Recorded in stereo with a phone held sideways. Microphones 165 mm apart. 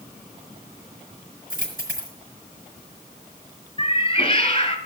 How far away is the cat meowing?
About 1.7 m.